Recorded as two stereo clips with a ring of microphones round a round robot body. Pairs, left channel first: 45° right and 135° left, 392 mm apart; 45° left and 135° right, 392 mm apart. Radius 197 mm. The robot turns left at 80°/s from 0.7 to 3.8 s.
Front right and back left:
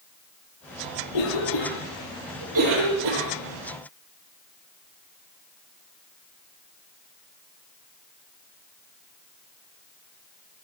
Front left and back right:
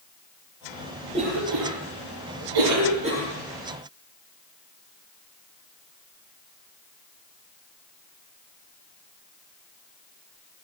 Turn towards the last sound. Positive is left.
turn(degrees=90)